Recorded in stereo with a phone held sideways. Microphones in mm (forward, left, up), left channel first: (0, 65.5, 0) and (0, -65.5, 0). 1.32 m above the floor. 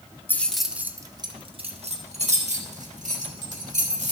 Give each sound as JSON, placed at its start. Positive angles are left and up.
{"t": 0.3, "sound": "keys jangling", "side_deg": 15, "distance_m": 0.6}